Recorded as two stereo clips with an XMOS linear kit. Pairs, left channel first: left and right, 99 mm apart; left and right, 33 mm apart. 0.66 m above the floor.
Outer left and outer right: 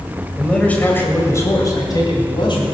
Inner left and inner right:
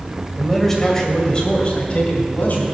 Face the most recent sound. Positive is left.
turn(degrees=55)  # may be behind; listen again after turning